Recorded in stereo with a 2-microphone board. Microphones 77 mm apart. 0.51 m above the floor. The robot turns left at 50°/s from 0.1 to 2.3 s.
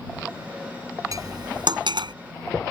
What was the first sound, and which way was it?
Cutlery clinking, 50° right (ahead or behind).